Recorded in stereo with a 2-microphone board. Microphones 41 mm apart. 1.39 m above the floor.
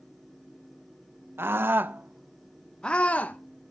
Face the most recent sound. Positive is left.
turn(degrees=40)  # may be behind; listen again after turning